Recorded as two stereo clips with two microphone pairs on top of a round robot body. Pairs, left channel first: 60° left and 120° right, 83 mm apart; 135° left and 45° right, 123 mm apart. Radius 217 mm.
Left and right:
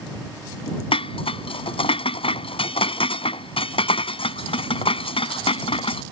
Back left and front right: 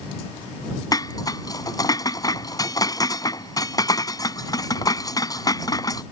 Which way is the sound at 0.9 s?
70° left.